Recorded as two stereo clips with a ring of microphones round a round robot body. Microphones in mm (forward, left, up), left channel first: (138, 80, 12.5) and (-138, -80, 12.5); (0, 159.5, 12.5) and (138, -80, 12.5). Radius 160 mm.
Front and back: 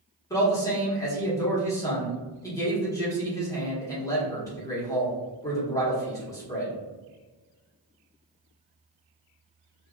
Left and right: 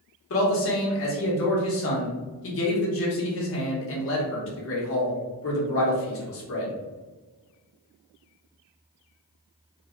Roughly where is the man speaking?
Left.